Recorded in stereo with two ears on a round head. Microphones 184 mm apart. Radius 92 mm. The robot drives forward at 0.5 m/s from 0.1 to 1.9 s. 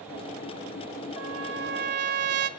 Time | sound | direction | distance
1.2 | a trumpet | 80° right | 0.7 m